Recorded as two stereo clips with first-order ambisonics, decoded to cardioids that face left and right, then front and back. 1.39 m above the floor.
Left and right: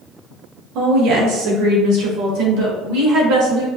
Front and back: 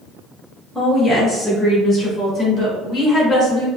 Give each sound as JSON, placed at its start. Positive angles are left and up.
{"t": 0.8, "sound": "a woman speaking", "azimuth_deg": -95, "distance_m": 1.5}